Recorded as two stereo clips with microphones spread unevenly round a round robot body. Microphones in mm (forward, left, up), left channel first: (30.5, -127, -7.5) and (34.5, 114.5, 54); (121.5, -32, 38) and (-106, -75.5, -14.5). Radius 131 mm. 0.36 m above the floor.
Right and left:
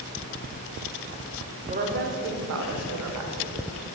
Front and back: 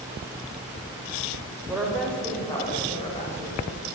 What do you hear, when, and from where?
1.7 s a woman speaking: 150° left, 0.9 m; by 3.7 s 75° left, 1.6 m